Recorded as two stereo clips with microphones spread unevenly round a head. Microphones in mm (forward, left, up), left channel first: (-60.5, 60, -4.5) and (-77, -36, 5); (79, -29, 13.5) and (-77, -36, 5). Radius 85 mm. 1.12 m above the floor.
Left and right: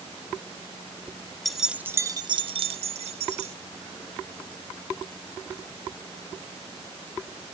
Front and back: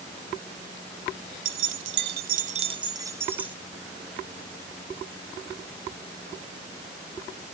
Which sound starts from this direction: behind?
Keys jangling, at 1.4 s.